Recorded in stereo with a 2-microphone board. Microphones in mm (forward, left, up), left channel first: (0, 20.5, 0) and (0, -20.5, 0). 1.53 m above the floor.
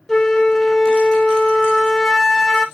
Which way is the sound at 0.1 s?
10° left (ahead or behind).